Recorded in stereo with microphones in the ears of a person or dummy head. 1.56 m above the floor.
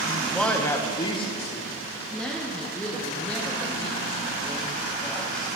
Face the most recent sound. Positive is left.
turn(degrees=5)  # may be behind; listen again after turning